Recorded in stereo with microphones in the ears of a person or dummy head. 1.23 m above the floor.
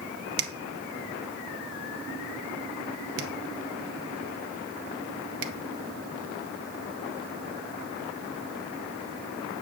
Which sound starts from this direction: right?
A finger snap, at 0.4 s.